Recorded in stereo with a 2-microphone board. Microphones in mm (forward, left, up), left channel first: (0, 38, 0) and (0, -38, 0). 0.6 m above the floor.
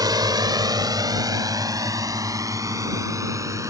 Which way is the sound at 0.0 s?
60° right (ahead or behind).